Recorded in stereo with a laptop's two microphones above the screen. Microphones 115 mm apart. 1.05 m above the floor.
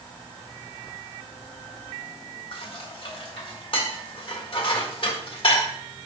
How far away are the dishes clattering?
About 1.8 m.